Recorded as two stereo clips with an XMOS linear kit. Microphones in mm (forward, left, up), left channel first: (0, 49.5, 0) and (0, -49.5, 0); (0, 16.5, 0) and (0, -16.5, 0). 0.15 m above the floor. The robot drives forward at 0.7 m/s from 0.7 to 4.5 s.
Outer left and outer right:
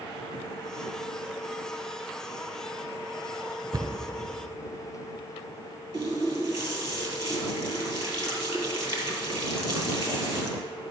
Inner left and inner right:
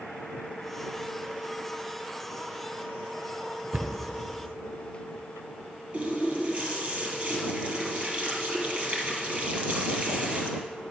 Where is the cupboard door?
35° right (ahead or behind), 1.2 m; by 3.9 s 30° right (ahead or behind), 1.3 m.